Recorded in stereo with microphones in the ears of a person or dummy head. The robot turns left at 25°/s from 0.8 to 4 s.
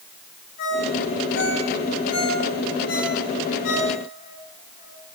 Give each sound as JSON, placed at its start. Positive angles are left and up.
{"t": 0.6, "sound": "a ringtone", "side_deg": 50, "distance_m": 10.0}